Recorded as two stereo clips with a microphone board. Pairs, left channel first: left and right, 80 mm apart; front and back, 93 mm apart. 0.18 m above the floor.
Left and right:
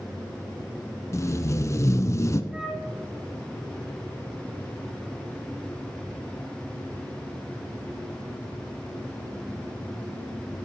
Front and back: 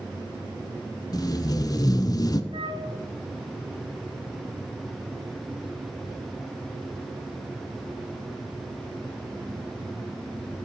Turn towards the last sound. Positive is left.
turn(degrees=-170)